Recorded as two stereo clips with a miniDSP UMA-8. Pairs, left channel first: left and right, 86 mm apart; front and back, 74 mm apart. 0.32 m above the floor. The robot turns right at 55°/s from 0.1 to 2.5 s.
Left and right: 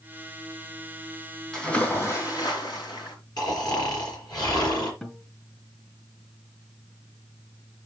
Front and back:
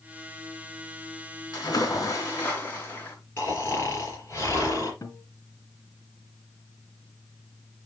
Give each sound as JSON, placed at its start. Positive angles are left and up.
{"t": 1.5, "sound": "a splash", "azimuth_deg": 5, "distance_m": 3.0}
{"t": 3.4, "sound": "snoring", "azimuth_deg": 50, "distance_m": 4.0}
{"t": 5.0, "sound": "a guitar", "azimuth_deg": 10, "distance_m": 2.0}